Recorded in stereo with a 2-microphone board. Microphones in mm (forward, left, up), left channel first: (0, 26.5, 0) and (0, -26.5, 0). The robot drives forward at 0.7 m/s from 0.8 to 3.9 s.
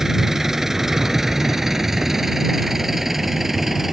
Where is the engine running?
10° right (ahead or behind); by 3.9 s 5° right (ahead or behind).